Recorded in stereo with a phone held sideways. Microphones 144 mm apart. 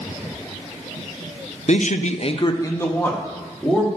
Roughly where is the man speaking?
Left.